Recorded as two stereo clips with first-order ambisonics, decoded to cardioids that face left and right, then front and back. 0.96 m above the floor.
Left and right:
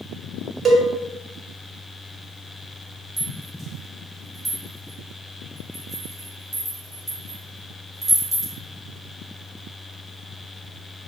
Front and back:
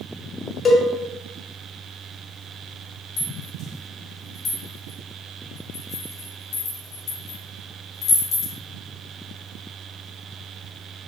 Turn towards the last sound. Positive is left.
turn(degrees=-30)